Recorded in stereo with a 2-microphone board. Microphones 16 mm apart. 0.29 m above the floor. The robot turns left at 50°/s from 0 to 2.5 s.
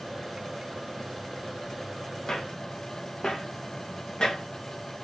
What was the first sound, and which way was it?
Footsteps, 80° left.